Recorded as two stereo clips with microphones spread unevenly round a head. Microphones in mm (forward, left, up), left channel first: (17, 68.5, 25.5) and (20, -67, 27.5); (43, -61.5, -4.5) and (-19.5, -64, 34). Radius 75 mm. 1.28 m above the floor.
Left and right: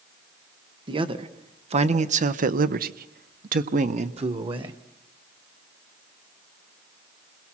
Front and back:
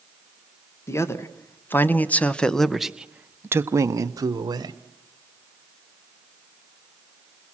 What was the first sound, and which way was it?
A man speaking, 35° right.